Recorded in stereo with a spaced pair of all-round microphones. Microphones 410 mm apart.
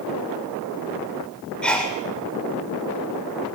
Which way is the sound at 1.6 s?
Centre (ahead or behind).